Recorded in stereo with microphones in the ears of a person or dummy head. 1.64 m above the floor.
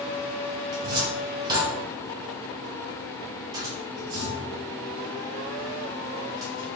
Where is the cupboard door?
20° right (ahead or behind), 1.1 m.